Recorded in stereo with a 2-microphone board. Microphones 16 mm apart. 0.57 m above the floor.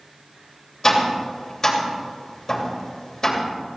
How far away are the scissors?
No scissors in this recording.